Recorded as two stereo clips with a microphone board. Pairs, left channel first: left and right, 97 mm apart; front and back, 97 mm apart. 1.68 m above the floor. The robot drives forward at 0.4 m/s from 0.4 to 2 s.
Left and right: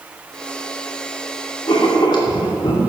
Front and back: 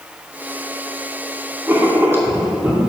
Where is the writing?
115° left, 2.5 m.